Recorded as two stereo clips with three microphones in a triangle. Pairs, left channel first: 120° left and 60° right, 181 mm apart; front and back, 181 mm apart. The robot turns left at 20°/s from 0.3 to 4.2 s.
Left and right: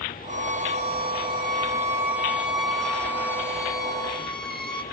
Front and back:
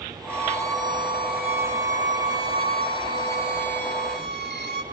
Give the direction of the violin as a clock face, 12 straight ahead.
3 o'clock.